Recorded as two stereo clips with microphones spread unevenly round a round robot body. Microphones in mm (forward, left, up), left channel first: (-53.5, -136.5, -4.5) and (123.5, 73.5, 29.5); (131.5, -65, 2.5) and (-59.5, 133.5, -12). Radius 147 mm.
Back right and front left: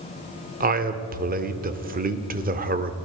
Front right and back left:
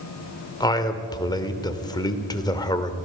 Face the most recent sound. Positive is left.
turn(degrees=20)